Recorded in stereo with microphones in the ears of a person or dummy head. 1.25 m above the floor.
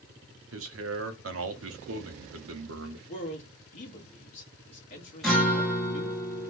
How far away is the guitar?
About 0.6 m.